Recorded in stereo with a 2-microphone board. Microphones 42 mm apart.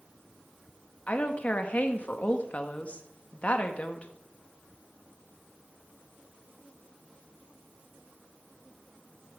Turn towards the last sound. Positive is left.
turn(degrees=35)  # may be behind; listen again after turning